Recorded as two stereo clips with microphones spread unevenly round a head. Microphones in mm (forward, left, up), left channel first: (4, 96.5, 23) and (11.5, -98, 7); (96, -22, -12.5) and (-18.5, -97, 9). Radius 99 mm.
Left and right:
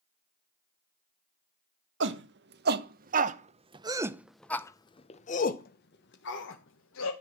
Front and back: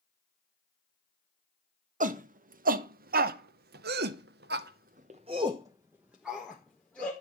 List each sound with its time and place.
2.0 s a shout: 120° right, 1.5 m; by 7.1 s 115° left, 1.6 m